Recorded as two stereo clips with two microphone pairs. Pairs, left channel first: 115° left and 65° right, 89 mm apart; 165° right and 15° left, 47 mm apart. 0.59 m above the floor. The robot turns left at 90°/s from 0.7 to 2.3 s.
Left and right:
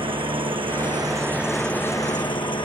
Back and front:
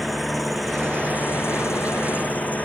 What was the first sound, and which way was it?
An engine running, 75° right.